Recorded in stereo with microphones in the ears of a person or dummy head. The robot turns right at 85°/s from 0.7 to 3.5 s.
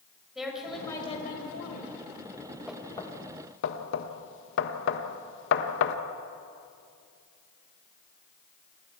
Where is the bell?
No bell in this recording.